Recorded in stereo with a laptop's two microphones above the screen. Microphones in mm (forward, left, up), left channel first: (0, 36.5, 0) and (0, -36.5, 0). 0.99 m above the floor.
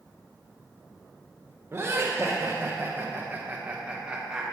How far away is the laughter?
About 1.1 m.